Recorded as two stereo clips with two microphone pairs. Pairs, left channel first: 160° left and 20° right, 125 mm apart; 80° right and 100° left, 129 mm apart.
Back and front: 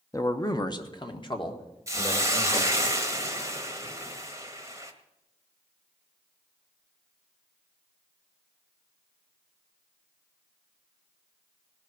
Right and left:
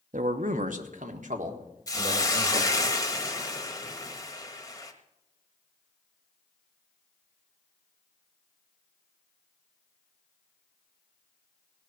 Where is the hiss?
55° right, 1.2 m.